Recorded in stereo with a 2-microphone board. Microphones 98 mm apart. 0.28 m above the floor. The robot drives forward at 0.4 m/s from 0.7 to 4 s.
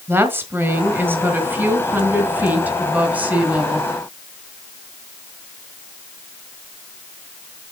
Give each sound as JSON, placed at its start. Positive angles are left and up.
{"t": 0.1, "sound": "a woman speaking", "side_deg": -20, "distance_m": 1.7}